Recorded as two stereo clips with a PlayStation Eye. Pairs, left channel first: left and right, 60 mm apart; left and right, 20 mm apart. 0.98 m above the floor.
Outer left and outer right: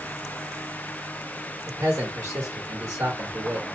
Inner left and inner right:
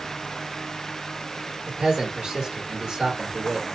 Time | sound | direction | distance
1.7 | a man speaking | 55° right (ahead or behind) | 1.2 m